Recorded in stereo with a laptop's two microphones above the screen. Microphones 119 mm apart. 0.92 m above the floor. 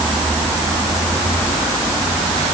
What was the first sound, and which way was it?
Only background noise.